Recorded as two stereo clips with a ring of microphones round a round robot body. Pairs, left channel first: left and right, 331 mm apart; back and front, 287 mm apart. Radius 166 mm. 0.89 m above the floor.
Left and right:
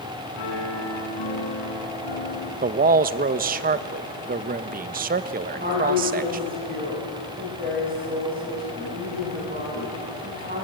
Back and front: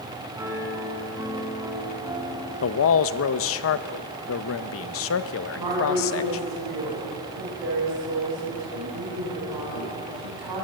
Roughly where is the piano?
Left.